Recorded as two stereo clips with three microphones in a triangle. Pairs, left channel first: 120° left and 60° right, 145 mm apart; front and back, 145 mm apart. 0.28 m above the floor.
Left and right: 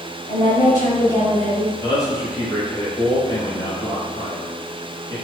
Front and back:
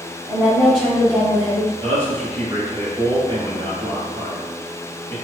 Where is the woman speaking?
115° left, 1.6 m; by 1.7 s 40° left, 1.4 m.